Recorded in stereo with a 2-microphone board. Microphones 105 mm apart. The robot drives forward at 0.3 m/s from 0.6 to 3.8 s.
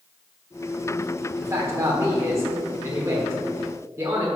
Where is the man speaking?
25° right (ahead or behind), 1.4 m.